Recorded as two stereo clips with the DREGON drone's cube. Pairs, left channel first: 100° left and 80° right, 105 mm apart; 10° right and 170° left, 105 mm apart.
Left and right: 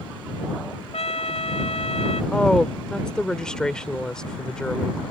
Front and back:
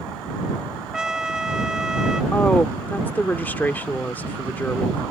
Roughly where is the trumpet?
Left.